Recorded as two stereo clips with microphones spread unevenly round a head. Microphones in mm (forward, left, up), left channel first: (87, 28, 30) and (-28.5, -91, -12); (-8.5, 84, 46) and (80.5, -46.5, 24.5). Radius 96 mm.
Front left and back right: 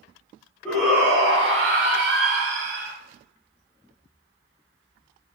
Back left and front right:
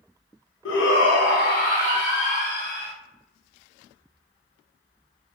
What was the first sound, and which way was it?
A shout, 130° left.